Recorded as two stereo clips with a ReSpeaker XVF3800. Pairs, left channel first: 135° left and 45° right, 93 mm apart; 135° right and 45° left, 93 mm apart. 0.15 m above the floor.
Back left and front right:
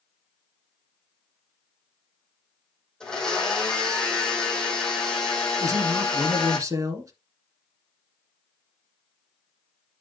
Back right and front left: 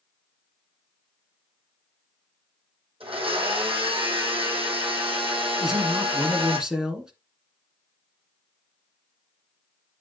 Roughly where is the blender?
Ahead left.